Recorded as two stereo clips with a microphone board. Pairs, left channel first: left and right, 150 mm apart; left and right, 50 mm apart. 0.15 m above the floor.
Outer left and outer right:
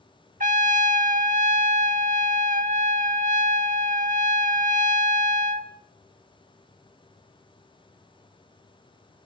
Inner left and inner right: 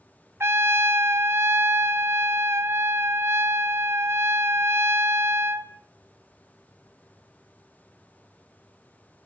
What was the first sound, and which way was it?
A trumpet, 65° right (ahead or behind).